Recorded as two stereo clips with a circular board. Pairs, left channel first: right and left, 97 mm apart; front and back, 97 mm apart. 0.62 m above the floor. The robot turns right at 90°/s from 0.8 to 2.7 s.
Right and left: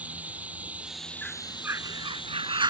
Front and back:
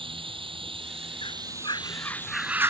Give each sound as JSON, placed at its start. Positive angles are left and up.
{"t": 0.0, "sound": "running water", "azimuth_deg": 165}
{"t": 1.2, "sound": "a bird", "azimuth_deg": -15}